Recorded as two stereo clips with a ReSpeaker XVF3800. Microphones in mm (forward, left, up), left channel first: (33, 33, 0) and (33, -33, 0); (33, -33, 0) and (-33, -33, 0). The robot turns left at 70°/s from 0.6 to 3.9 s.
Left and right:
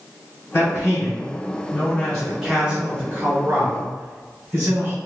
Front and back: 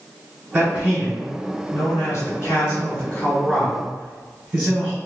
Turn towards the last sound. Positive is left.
turn(degrees=-115)